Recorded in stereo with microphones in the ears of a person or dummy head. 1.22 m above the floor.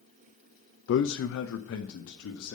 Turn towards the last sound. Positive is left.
turn(degrees=75)  # may be behind; listen again after turning